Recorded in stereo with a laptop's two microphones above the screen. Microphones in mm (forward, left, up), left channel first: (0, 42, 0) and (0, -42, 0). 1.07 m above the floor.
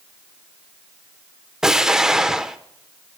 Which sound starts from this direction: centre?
An explosion, at 1.6 s.